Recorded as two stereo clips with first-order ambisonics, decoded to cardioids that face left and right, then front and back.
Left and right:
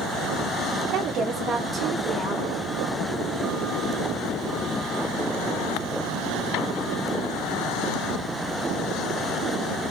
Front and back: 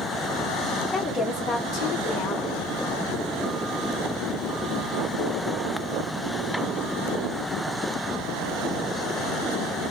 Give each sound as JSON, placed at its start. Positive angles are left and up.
{"t": 0.9, "sound": "a woman speaking", "azimuth_deg": -65, "distance_m": 0.7}